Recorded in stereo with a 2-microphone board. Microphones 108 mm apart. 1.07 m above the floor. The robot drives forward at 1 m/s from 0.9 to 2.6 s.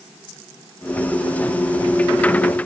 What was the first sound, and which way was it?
Only background noise.